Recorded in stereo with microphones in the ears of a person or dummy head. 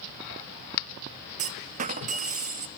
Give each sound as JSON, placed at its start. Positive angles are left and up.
{"t": 1.4, "sound": "a clunk", "side_deg": -50, "distance_m": 0.6}